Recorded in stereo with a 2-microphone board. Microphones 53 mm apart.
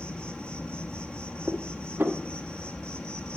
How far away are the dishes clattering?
About 1.2 m.